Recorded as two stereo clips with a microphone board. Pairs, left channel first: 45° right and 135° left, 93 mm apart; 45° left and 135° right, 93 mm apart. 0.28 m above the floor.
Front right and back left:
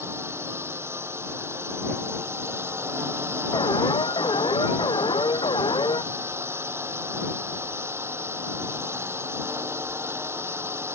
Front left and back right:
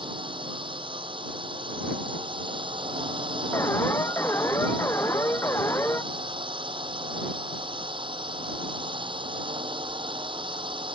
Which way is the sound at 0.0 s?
160° right.